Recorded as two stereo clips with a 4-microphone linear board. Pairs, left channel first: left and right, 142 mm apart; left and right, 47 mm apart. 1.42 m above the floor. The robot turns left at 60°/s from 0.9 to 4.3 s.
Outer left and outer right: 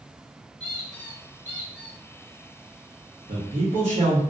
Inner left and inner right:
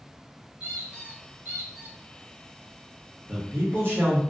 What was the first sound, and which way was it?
A squeak, 30° right.